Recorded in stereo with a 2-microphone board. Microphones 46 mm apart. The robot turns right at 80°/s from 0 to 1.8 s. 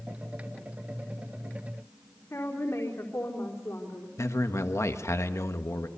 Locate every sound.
2.3 s a woman speaking: 75° left (ahead or behind), 4 m
4.2 s a man speaking: 85° left, 1.5 m